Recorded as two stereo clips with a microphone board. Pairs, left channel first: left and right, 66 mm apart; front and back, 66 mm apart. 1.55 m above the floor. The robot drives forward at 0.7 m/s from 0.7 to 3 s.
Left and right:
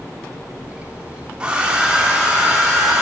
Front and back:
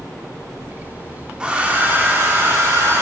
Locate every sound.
1.4 s a hair dryer: 130° right, 1.1 m; by 3.0 s 165° right, 1.8 m